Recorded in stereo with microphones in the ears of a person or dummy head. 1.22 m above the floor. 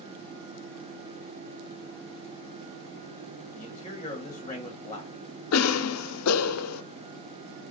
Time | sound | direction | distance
3.5 | a man speaking | 20° left (ahead or behind) | 1.0 m
5.5 | a cough | 90° left | 0.5 m